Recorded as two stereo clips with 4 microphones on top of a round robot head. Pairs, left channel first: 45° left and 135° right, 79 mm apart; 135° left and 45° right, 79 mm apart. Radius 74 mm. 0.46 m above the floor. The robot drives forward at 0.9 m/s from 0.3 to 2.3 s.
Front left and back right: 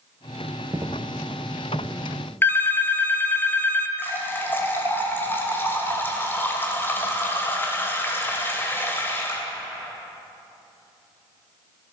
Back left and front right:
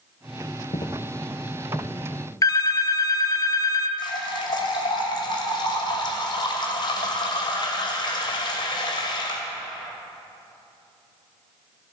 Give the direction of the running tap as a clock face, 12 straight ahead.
8 o'clock.